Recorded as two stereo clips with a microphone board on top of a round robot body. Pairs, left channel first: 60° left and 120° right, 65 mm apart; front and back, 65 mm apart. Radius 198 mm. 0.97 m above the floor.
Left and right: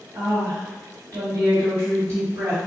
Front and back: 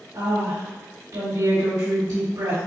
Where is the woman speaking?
160° right, 1.9 m.